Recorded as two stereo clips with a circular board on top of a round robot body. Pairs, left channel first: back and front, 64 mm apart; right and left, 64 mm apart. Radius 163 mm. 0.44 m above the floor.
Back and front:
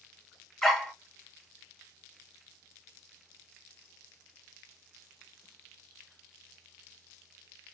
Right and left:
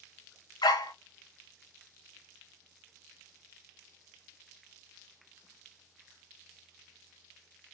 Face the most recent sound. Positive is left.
turn(degrees=-95)